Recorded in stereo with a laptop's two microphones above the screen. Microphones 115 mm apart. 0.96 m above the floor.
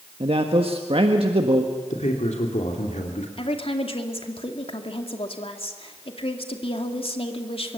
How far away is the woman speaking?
About 2 m.